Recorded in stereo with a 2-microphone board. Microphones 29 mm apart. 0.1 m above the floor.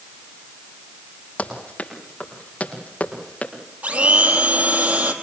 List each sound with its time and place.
1.4 s running footsteps: 50° left (ahead or behind), 7 m; by 3.5 s 55° left (ahead or behind), 5 m
3.8 s a blender: 65° right (ahead or behind), 3 m